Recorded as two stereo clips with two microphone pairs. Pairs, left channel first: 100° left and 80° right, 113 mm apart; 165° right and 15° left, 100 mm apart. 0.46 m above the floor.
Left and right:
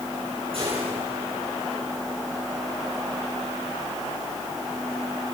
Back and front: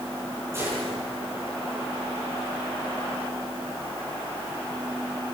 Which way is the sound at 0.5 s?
50° right.